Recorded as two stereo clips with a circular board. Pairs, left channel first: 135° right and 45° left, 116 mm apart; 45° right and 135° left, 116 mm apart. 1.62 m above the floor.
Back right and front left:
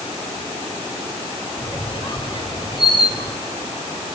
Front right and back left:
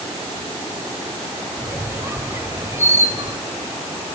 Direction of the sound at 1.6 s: 165° right.